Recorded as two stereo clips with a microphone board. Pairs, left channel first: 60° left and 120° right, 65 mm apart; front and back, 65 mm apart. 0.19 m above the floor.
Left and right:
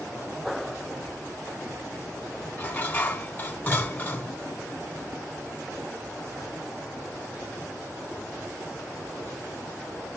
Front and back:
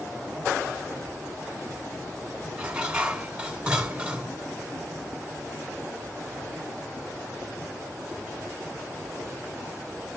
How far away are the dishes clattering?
About 1.0 m.